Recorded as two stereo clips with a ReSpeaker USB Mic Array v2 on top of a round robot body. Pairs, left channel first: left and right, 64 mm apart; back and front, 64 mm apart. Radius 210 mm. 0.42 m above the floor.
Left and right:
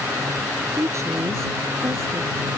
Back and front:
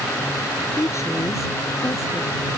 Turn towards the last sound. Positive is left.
turn(degrees=-135)